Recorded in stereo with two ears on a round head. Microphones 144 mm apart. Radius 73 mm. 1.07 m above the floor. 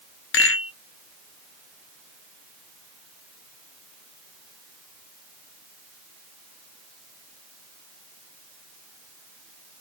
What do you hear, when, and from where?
0.3 s a rattle: 80° left, 1.1 m